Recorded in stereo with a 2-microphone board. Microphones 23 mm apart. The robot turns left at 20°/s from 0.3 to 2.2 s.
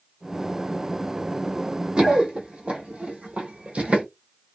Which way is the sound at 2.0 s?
50° right (ahead or behind).